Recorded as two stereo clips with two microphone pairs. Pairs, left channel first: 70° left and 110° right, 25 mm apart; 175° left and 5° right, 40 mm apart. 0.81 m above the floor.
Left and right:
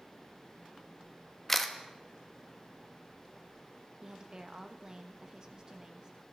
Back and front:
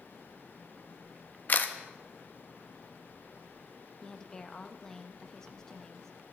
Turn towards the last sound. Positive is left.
turn(degrees=-130)